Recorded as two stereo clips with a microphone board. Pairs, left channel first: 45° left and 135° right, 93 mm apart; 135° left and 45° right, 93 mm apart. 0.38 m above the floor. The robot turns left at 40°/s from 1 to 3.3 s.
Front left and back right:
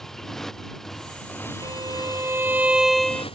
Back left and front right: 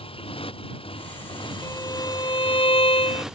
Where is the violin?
170° right; by 3.2 s 125° left.